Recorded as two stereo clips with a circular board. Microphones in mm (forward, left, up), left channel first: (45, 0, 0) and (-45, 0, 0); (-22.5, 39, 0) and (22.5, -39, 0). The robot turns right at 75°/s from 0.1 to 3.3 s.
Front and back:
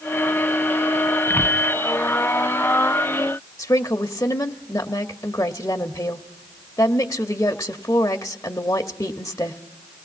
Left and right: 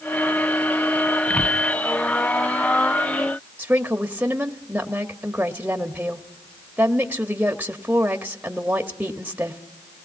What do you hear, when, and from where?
1.3 s a whoosh: 60° left, 1.7 m; by 1.6 s 85° left, 1.7 m
3.6 s a woman speaking: straight ahead, 1.1 m